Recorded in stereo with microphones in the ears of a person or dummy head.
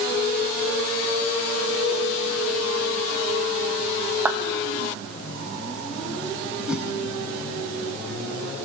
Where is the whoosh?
Centre (ahead or behind), 3.5 m.